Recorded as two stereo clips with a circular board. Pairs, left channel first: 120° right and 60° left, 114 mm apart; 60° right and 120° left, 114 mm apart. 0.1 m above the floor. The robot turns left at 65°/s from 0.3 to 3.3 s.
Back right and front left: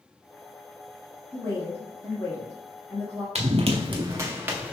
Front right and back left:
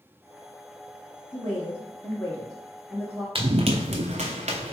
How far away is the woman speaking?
About 1.7 m.